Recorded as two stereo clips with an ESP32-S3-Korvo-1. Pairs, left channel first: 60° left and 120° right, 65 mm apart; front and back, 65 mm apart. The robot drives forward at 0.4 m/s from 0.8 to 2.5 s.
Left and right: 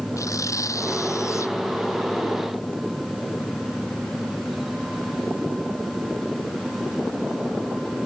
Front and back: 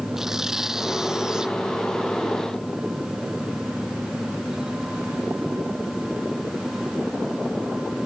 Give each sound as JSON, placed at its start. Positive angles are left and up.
{"t": 0.2, "sound": "tearing paper", "azimuth_deg": 95}